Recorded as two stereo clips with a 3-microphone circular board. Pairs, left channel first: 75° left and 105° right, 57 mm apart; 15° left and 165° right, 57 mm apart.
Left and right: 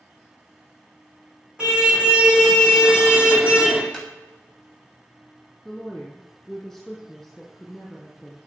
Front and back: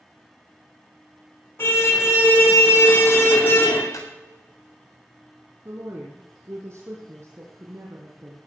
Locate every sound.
1.6 s a car horn: 30° right, 4.5 m; by 3.8 s 35° right, 3.5 m
3.9 s footsteps: 20° right, 7.5 m
5.7 s a woman speaking: 165° left, 4 m